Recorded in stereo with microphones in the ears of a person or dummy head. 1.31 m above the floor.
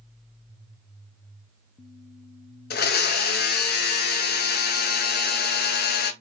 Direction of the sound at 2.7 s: 50° left (ahead or behind).